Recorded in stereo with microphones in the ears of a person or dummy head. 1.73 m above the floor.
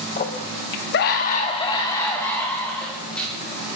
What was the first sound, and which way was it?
A scream, 35° left (ahead or behind).